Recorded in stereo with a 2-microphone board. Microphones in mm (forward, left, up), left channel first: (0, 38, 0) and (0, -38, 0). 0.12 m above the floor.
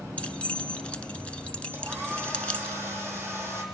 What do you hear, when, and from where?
0.2 s keys jangling: 15° left (ahead or behind), 0.8 m
1.7 s a hair dryer: 35° right (ahead or behind), 4 m